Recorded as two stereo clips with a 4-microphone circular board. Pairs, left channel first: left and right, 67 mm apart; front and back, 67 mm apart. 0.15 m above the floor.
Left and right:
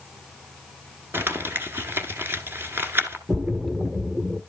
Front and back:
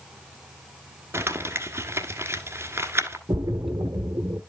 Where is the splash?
150° right, 1.2 m.